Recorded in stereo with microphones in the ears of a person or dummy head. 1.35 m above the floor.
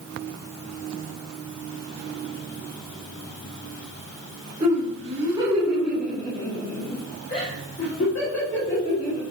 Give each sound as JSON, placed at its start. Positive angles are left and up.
{"t": 4.6, "sound": "laughter", "side_deg": -35, "distance_m": 2.0}